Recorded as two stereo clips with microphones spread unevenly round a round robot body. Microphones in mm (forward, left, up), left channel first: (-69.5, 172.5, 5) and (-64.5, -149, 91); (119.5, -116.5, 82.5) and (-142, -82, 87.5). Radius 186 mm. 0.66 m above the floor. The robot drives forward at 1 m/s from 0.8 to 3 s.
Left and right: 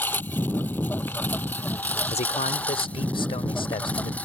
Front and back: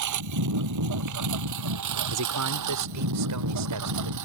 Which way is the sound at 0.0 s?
175° left.